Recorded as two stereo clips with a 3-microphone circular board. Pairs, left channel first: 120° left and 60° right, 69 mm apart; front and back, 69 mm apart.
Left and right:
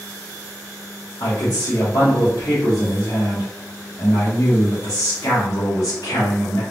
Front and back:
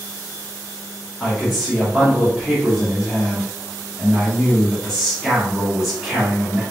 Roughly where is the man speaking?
Left.